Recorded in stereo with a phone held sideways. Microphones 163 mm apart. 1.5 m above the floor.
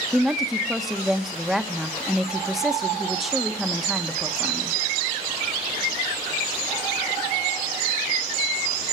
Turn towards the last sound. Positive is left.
turn(degrees=0)  # may be behind; listen again after turning